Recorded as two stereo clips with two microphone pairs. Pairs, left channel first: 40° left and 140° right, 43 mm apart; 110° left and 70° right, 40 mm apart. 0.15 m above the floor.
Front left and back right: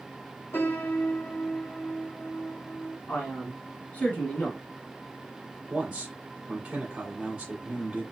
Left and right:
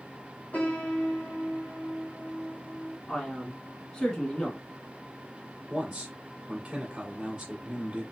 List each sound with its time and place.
0.5 s a piano: 60° left, 1.5 m
3.1 s a man speaking: 45° left, 1.7 m
5.7 s a man speaking: 110° right, 1.5 m